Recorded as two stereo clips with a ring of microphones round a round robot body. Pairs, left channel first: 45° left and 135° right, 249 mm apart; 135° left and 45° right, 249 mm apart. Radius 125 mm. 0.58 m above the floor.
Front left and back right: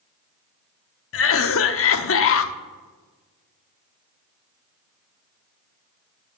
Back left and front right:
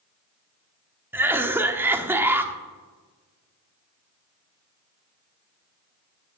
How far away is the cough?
About 0.9 m.